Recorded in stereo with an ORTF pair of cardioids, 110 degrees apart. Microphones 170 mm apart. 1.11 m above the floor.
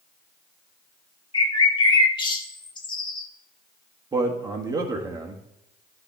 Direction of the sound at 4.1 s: 25° right.